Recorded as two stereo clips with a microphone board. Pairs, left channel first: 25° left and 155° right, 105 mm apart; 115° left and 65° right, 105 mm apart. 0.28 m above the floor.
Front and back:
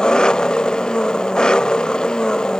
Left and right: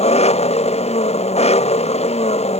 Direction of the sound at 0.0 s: 105° left.